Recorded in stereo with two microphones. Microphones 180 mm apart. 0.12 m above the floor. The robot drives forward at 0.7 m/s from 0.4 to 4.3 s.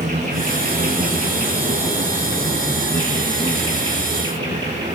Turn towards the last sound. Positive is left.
turn(degrees=-25)  # may be behind; listen again after turning